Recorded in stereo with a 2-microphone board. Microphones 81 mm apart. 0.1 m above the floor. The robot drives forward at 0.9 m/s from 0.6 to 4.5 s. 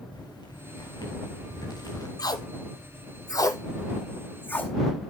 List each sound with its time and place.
0.1 s footsteps: 60° left (ahead or behind), 5.5 m; by 2.1 s 50° left (ahead or behind), 3.5 m
2.2 s tape being pulled: 50° left (ahead or behind), 0.9 m; by 4.7 s 25° left (ahead or behind), 1.8 m